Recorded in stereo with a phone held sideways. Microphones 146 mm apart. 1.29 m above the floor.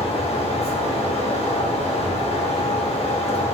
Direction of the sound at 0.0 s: 45° left (ahead or behind).